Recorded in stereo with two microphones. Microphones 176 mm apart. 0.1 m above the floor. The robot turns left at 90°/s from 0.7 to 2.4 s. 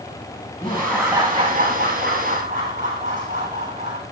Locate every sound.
0.6 s laughter: 25° left, 8.5 m; by 4.0 s 130° right, 8.5 m